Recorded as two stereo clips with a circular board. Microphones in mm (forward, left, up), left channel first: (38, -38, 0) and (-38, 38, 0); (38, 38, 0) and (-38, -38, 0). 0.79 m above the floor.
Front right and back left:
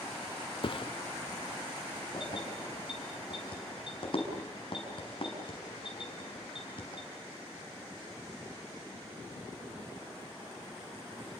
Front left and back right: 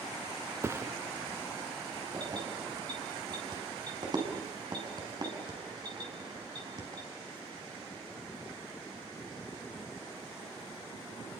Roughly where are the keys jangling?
Right.